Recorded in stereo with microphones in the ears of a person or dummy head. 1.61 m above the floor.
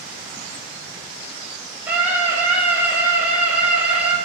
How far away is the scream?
About 7.5 m.